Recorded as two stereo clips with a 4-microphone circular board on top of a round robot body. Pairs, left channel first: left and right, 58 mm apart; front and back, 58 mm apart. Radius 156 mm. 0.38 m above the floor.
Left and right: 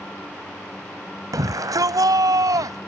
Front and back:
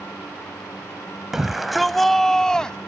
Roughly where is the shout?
Right.